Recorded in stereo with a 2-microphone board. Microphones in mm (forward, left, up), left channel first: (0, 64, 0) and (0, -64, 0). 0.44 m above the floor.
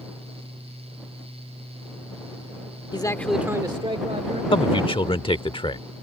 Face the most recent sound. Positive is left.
turn(degrees=45)  # may be behind; listen again after turning